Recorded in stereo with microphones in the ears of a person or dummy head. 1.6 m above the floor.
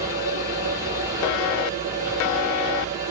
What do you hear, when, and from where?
0.0 s a machine running: 15° right (ahead or behind), 2.5 m